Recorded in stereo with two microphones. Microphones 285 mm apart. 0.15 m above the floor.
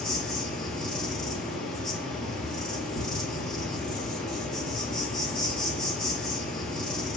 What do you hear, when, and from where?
0.0 s an insect: centre (ahead or behind), 1.0 m